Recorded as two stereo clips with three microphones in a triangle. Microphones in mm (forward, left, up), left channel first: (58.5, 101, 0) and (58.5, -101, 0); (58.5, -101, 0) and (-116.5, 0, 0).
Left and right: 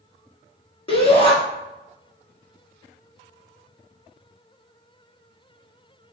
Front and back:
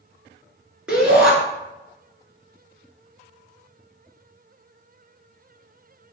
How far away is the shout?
About 1.2 m.